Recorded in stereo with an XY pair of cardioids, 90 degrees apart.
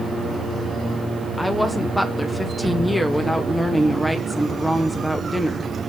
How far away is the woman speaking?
About 0.9 m.